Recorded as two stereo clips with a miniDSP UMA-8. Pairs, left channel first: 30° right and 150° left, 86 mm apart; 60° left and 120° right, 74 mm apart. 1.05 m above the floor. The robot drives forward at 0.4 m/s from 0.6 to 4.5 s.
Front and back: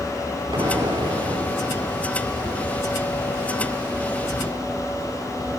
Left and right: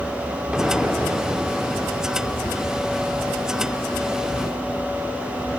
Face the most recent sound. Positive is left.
turn(degrees=170)